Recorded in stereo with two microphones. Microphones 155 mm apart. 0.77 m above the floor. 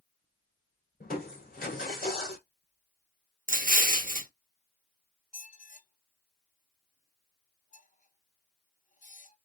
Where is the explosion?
65° right (ahead or behind), 0.6 m.